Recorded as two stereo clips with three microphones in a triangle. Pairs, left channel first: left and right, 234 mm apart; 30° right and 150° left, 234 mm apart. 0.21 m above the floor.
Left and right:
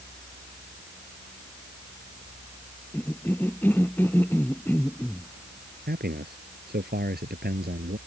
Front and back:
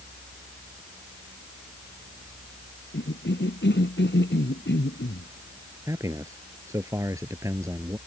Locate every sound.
2.9 s a cough: 10° left
5.9 s a man speaking: 135° right